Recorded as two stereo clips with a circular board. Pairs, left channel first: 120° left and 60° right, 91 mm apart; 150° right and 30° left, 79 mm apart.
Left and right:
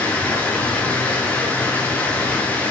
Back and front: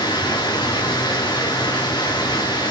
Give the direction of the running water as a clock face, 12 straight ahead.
6 o'clock.